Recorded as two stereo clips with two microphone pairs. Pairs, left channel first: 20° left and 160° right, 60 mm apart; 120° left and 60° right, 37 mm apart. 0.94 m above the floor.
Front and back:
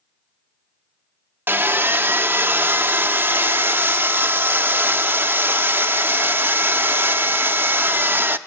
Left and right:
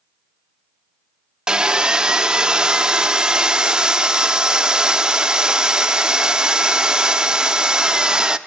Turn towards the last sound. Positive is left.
turn(degrees=-125)